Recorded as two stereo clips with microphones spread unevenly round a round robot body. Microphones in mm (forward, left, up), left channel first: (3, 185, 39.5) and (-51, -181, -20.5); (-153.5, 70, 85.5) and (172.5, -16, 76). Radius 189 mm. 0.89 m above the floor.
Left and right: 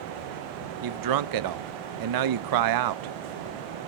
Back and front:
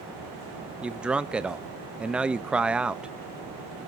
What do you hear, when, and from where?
0.8 s a man speaking: 100° right, 0.7 m